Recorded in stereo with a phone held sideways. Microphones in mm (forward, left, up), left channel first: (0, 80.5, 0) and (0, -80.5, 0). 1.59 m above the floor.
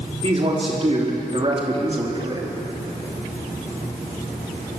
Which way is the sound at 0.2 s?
40° right (ahead or behind).